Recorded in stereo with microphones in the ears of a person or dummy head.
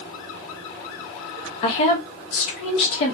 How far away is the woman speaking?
About 0.7 m.